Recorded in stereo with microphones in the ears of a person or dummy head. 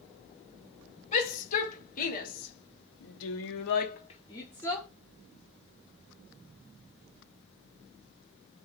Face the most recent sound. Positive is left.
turn(degrees=5)  # may be behind; listen again after turning